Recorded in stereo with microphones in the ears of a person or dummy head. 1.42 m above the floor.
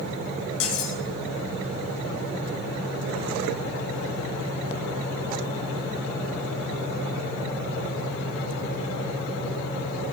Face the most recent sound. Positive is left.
turn(degrees=80)